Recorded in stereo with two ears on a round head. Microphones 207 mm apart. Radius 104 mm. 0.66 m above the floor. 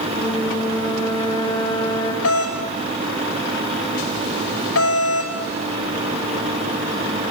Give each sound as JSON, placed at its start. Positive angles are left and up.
{"t": 0.1, "sound": "a flute", "side_deg": 25, "distance_m": 4.0}
{"t": 2.2, "sound": "a doorbell", "side_deg": 65, "distance_m": 4.0}